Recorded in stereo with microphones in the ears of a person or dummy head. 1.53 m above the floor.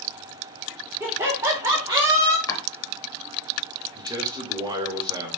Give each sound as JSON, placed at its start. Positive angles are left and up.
{"t": 1.0, "sound": "laughter", "side_deg": -10, "distance_m": 1.2}
{"t": 2.5, "sound": "chopping", "side_deg": 20, "distance_m": 1.1}
{"t": 4.0, "sound": "a man speaking", "side_deg": -20, "distance_m": 1.0}